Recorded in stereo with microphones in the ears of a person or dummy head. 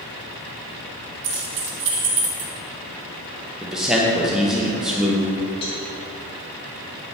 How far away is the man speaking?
About 1.1 m.